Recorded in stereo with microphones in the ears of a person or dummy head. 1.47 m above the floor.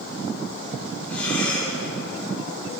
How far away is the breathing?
About 5 m.